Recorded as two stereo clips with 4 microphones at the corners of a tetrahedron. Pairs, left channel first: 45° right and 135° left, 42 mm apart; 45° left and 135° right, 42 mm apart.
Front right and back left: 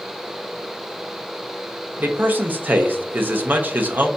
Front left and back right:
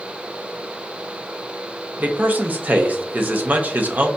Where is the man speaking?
Straight behind, 0.7 m.